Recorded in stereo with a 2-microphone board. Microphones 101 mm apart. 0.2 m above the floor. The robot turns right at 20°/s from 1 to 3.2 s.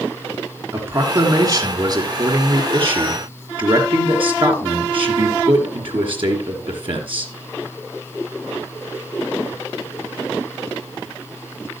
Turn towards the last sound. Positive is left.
turn(degrees=-110)